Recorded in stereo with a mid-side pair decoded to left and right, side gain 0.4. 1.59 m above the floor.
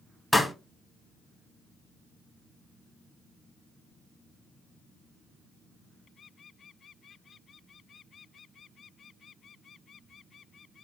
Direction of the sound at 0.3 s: 10° left.